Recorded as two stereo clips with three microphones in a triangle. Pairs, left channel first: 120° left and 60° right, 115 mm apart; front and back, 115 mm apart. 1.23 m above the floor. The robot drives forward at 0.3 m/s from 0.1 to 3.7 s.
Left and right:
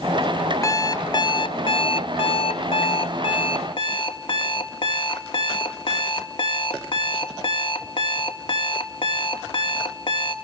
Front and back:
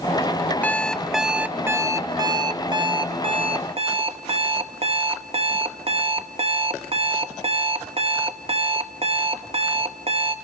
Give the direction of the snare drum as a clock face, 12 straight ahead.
I don't hear a snare drum.